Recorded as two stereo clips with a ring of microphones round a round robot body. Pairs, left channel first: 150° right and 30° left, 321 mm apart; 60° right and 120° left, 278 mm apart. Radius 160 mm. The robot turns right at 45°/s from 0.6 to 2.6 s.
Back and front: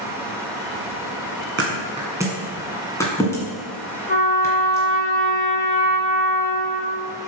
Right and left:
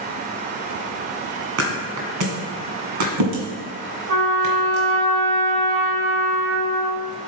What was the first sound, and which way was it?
A thud, 85° left.